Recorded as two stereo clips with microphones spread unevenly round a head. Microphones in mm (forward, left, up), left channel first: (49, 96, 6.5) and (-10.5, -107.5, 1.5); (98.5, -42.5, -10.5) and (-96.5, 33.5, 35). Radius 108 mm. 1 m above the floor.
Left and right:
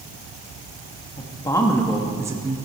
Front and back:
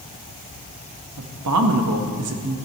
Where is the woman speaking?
140° left, 1.7 m; by 2.6 s 170° right, 1.3 m.